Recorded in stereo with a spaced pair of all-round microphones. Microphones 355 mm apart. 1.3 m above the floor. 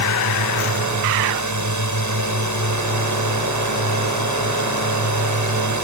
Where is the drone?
55° right (ahead or behind).